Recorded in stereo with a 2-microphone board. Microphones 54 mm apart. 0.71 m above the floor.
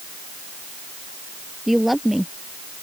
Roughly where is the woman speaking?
Centre.